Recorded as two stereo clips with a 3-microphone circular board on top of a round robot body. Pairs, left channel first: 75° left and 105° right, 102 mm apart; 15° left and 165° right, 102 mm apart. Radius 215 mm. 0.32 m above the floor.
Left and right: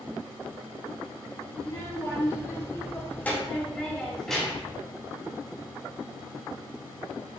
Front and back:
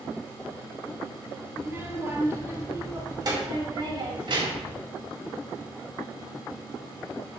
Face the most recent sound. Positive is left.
turn(degrees=165)